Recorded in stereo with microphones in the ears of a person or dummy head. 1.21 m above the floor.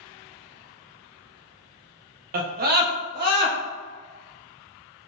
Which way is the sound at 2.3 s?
55° right (ahead or behind).